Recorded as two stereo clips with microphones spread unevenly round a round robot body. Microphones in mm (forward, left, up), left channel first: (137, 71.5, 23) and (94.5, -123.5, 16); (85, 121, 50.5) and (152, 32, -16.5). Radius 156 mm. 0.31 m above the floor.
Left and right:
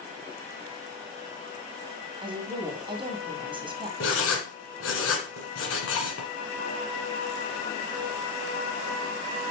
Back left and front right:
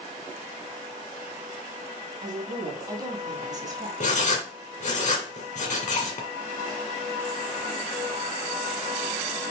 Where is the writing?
110° left, 1.8 m.